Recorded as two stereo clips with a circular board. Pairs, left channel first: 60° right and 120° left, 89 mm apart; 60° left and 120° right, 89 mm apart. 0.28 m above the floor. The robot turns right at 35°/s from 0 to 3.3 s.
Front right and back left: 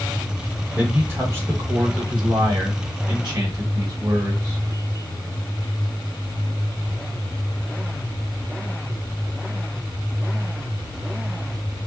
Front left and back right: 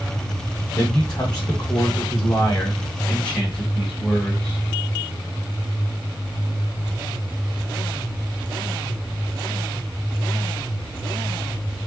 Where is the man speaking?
50° left, 1.4 m; by 4.6 s 140° left, 1.4 m.